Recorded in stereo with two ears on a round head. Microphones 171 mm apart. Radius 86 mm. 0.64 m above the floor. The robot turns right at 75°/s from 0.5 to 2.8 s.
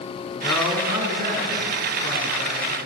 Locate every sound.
0.4 s a man speaking: 165° left, 6.5 m; by 2.6 s 35° right, 6.5 m